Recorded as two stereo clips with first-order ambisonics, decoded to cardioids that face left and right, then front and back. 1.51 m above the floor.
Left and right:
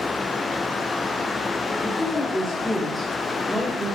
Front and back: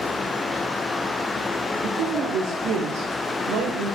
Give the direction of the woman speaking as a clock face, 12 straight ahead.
6 o'clock.